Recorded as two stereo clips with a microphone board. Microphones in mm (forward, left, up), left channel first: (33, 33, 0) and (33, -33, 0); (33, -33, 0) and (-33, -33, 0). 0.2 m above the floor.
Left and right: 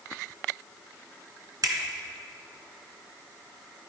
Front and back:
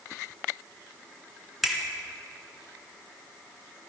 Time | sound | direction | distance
1.6 | a finger snap | 95° right | 2.0 m